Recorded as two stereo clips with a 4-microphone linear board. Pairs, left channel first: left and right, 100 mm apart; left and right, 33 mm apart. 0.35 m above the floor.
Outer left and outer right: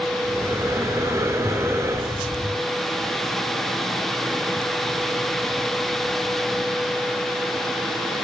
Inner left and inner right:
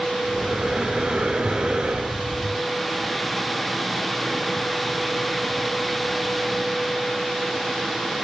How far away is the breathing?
About 3.5 m.